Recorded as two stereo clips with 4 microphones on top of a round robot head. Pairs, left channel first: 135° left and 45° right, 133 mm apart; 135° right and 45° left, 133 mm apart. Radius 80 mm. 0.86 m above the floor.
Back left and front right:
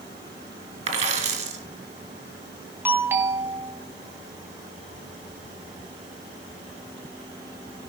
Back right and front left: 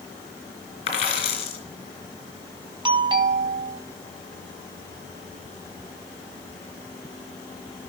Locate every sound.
0.9 s a dropped coin: 85° right, 3 m
2.9 s a doorbell: 20° left, 1.8 m